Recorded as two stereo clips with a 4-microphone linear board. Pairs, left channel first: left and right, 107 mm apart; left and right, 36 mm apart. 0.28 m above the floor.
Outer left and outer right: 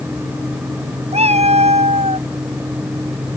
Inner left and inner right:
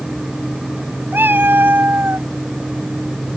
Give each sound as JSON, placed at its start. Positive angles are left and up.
{"t": 1.1, "sound": "a cat meowing", "side_deg": -80}